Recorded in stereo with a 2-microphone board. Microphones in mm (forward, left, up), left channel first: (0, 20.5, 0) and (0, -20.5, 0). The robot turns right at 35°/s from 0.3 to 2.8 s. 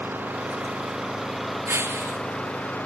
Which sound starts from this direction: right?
Breaking glass, at 1.7 s.